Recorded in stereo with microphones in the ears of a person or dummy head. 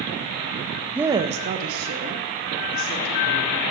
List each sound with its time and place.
0.9 s a woman speaking: 5° right (ahead or behind), 0.5 m; by 3.6 s 75° right (ahead or behind), 2.5 m